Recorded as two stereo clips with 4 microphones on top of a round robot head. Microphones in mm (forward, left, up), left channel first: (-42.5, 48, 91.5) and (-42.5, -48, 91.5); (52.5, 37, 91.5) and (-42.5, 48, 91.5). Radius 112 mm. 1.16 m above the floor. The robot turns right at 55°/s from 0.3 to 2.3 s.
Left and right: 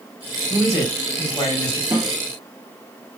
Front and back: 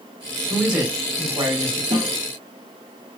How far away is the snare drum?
About 1.3 m.